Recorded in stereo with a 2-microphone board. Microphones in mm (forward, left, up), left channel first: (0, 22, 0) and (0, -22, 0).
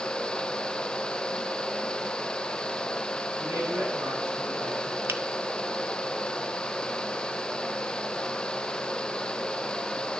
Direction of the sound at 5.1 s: 60° right (ahead or behind).